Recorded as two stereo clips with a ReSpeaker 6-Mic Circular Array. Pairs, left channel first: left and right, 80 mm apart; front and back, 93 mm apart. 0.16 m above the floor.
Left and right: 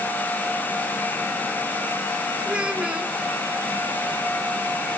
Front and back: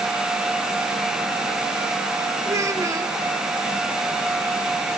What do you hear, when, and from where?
2.5 s a child speaking: 160° right, 0.8 m